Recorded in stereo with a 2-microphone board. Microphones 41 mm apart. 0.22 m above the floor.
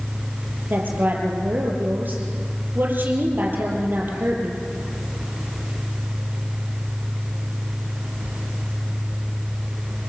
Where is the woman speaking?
50° right (ahead or behind), 5.5 m.